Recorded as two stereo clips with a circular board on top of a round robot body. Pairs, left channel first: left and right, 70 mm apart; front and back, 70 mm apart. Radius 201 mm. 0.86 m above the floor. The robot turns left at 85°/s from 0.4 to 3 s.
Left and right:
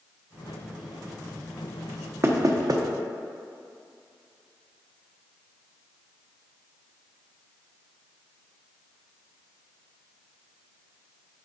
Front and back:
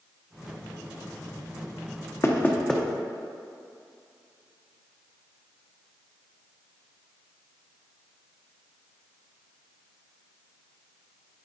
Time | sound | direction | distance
2.2 | knocking | 40° right | 1.0 m